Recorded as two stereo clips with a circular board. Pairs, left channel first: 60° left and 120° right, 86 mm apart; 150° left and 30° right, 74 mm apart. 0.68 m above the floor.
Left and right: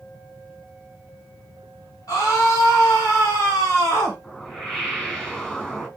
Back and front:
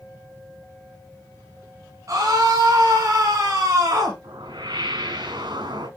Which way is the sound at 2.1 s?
20° left.